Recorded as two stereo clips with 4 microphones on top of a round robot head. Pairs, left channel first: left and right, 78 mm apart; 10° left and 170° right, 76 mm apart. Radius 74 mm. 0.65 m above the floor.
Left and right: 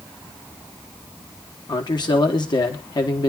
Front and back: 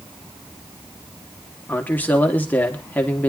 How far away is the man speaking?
About 1.2 m.